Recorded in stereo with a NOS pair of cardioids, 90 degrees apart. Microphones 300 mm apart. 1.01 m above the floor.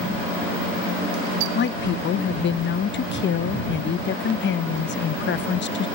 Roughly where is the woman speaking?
Ahead left.